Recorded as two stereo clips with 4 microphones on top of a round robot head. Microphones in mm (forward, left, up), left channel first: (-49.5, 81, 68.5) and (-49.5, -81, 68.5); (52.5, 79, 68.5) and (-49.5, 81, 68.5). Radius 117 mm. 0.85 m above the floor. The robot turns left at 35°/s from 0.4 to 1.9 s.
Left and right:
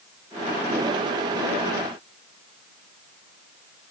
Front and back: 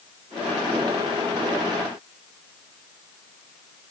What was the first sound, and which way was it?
Only background noise.